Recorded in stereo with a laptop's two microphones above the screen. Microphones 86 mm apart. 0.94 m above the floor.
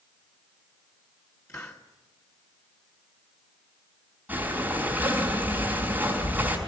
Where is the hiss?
35° left (ahead or behind), 1.2 m.